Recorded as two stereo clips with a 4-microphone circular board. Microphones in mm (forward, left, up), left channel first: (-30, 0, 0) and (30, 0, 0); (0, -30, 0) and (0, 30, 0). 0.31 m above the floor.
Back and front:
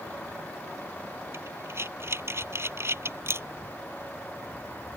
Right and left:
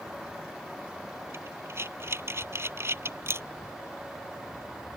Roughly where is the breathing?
Ahead left.